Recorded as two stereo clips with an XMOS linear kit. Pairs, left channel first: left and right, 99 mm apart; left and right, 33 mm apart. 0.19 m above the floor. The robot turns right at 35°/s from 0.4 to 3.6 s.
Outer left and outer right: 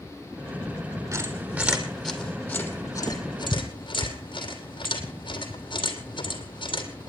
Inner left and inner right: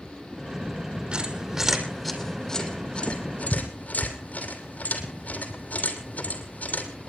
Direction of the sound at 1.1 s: 35° right (ahead or behind).